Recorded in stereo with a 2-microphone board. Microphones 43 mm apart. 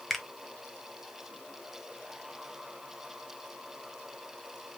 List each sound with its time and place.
0.1 s a finger snap: 5° left (ahead or behind), 0.8 m